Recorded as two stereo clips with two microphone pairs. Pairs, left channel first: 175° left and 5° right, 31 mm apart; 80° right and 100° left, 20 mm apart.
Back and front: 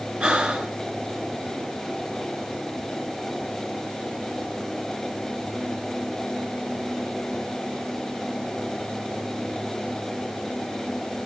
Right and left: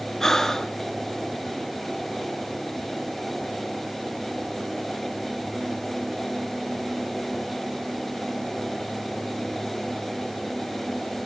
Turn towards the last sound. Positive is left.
turn(degrees=-25)